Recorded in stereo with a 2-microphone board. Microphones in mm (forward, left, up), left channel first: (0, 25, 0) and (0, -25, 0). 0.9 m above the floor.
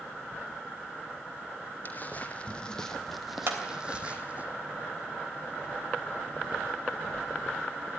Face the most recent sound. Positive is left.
turn(degrees=-50)  # may be behind; listen again after turning